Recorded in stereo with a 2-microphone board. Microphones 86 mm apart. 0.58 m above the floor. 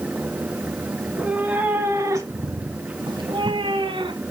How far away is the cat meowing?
About 1.4 m.